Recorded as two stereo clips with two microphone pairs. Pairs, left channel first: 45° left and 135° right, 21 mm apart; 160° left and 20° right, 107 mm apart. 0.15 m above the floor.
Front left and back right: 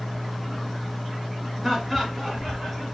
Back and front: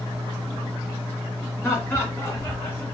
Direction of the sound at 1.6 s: 125° left.